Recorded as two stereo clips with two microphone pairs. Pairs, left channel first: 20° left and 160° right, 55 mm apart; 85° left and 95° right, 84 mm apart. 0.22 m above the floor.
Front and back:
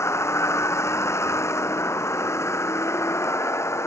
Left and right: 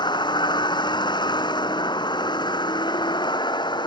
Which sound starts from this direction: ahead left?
A vehicle, at 0.0 s.